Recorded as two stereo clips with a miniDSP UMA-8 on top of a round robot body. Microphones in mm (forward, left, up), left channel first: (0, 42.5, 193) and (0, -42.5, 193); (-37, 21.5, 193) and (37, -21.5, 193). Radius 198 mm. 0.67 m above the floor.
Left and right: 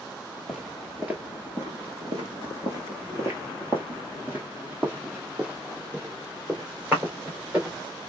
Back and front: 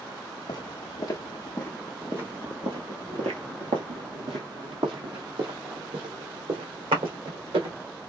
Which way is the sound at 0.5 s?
175° right.